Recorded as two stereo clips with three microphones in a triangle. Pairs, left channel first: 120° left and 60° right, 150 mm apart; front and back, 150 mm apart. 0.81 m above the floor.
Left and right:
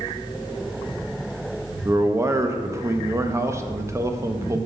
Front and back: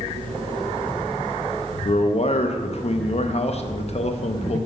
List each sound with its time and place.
1.9 s a man speaking: 5° left, 0.5 m